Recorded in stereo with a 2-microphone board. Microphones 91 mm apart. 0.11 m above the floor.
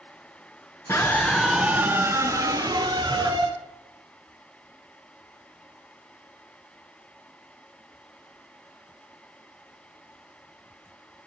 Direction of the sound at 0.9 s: 30° left (ahead or behind).